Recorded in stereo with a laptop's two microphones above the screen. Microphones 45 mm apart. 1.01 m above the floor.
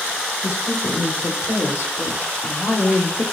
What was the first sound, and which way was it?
A woman speaking, 75° left (ahead or behind).